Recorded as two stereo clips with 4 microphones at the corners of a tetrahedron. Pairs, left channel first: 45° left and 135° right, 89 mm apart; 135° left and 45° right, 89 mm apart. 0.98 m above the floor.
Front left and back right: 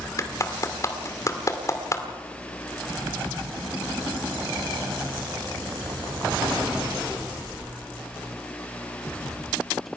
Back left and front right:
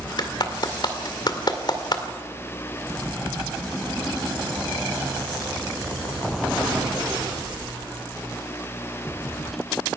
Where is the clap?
100° left, 2 m.